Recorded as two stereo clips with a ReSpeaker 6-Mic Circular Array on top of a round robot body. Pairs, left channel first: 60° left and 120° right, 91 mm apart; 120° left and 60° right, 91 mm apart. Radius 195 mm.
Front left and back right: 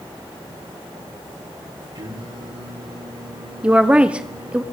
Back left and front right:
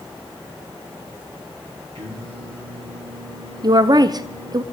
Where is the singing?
85° right, 7.5 m.